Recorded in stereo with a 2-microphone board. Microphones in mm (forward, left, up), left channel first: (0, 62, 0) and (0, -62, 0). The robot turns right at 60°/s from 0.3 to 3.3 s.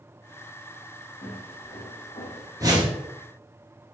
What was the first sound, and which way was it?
Footsteps, 70° left (ahead or behind).